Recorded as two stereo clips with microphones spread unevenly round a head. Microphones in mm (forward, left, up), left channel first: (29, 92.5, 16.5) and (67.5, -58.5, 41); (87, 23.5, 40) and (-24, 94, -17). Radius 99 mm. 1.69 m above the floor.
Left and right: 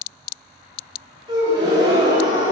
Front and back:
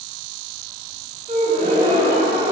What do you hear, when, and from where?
1.3 s a gasp: 145° right, 6 m